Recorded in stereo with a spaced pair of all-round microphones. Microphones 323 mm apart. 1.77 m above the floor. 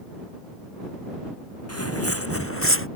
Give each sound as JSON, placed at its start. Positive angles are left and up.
{"t": 1.7, "sound": "footsteps", "side_deg": 50}